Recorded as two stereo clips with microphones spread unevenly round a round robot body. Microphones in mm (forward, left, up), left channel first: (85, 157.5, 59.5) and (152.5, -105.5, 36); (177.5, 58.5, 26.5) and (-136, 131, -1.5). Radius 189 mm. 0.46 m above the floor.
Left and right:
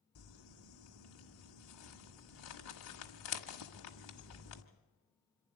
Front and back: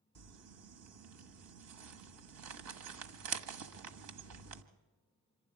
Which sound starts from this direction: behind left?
Crumpling, at 0.1 s.